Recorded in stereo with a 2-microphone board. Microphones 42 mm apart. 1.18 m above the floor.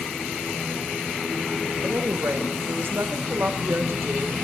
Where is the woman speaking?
65° right (ahead or behind), 1.1 m.